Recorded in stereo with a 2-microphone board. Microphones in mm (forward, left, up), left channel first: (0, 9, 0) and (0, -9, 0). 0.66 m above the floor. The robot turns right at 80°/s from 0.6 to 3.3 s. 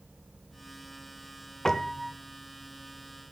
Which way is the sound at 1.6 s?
150° left.